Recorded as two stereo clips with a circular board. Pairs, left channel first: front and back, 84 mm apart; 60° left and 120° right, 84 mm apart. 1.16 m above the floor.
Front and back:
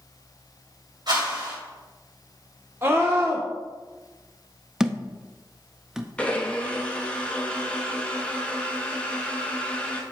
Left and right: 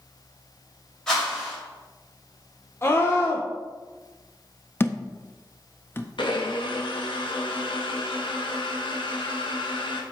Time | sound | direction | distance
1.1 | a whoosh | 145° left | 3.5 m
2.8 | a scream | 120° left | 0.9 m
4.8 | a thud | 100° left | 0.5 m
6.2 | a blender | 75° left | 1.0 m